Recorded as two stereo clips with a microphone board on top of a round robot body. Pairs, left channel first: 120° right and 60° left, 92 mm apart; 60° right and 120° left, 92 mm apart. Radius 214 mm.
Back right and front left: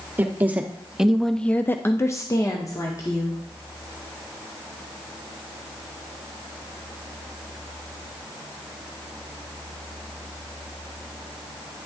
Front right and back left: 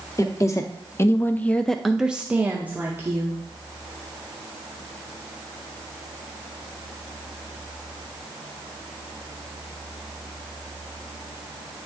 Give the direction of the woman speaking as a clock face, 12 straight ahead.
12 o'clock.